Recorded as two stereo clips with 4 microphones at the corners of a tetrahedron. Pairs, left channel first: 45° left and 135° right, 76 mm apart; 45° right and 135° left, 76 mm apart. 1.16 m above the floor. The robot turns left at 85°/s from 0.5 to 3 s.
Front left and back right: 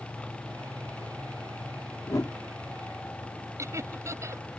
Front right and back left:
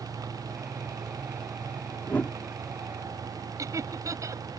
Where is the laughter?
Straight behind.